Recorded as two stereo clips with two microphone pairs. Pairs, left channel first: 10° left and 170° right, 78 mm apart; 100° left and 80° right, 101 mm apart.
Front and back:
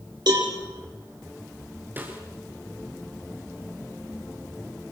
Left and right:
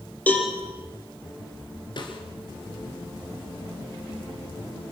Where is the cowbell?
175° left, 5 m.